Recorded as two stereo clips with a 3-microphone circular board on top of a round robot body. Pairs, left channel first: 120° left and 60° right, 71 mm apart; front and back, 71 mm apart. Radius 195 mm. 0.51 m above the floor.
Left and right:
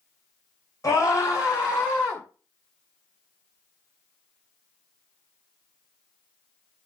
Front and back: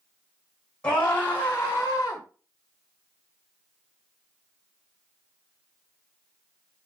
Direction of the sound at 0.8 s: 75° left.